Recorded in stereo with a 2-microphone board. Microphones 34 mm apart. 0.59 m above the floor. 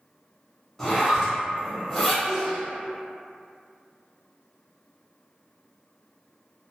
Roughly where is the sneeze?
Centre.